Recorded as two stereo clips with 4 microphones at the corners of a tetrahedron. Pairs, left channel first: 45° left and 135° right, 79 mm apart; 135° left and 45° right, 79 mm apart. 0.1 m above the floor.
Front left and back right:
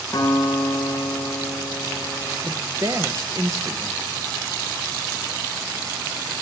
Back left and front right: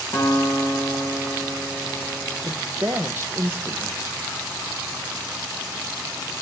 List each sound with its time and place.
0.1 s a guitar: 95° left, 6.5 m
2.4 s a woman speaking: 95° right, 2 m